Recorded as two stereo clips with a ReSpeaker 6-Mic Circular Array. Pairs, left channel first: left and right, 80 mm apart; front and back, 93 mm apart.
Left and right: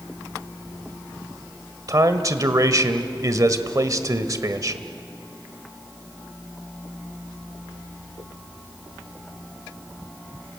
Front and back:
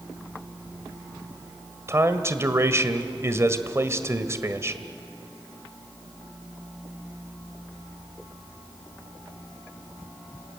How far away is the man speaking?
About 1.4 m.